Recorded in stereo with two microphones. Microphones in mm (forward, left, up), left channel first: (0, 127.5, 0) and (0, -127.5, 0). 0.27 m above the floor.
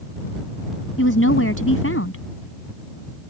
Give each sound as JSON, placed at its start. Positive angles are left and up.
{"t": 1.0, "sound": "a woman speaking", "side_deg": 55}